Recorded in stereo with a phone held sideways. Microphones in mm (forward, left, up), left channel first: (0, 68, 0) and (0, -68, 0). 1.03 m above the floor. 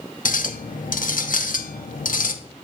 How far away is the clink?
About 0.8 m.